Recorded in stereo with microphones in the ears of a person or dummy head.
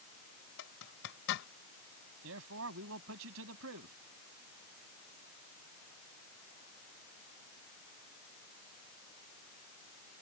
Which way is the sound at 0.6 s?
70° left (ahead or behind).